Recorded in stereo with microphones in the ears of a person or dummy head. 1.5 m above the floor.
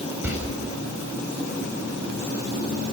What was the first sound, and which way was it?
A door slam, 10° right (ahead or behind).